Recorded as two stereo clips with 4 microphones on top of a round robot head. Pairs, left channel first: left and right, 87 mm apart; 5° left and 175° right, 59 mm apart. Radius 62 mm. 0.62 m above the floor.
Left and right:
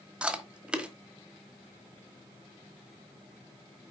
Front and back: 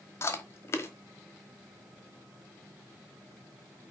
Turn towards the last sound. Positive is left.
turn(degrees=-15)